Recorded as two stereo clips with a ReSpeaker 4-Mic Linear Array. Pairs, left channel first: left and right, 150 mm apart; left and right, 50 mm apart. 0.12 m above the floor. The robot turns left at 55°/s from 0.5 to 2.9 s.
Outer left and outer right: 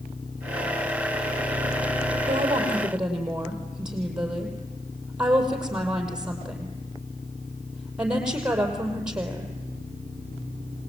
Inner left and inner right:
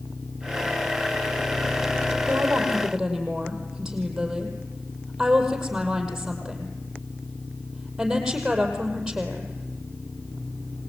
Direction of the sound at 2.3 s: 40° right (ahead or behind).